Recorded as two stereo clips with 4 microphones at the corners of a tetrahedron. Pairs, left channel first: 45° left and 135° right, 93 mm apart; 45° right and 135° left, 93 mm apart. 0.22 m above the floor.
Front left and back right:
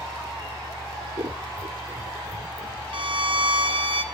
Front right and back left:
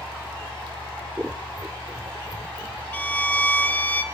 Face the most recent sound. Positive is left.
turn(degrees=-115)